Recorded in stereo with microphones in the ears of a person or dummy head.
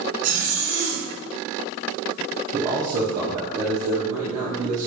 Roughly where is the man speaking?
Right.